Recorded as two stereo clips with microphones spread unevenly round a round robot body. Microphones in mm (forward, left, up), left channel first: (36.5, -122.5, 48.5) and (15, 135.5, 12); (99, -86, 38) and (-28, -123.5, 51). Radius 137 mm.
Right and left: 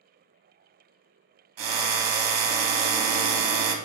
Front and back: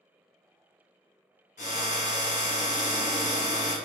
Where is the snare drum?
No snare drum in this recording.